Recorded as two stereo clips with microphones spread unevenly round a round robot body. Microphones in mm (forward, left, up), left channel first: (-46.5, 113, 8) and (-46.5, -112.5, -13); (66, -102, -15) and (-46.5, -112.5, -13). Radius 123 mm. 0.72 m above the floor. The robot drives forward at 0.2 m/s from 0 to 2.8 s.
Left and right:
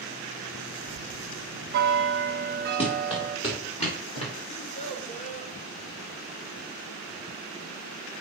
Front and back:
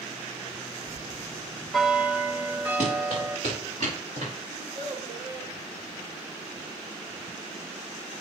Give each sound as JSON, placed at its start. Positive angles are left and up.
{"t": 0.9, "sound": "a bell", "azimuth_deg": -65, "distance_m": 0.7}
{"t": 2.8, "sound": "running footsteps", "azimuth_deg": 155, "distance_m": 4.5}
{"t": 4.5, "sound": "a child speaking", "azimuth_deg": 155, "distance_m": 1.1}